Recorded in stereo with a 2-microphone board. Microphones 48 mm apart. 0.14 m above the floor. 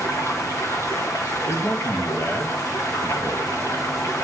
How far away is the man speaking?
About 3 m.